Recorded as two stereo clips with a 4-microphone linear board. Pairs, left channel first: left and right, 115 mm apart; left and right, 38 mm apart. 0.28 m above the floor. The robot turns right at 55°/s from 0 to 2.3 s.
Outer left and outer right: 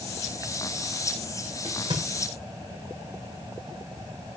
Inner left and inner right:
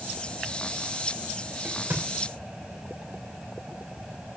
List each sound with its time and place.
1.6 s a crack: 35° right (ahead or behind), 4 m; by 2.0 s 55° right (ahead or behind), 4 m